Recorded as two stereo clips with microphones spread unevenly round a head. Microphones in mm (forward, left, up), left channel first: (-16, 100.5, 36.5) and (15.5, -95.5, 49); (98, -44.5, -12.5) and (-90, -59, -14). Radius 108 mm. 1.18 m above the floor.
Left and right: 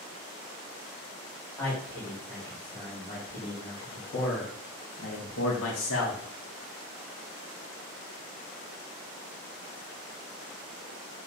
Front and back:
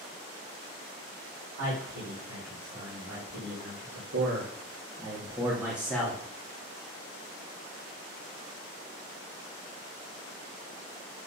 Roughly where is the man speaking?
Behind.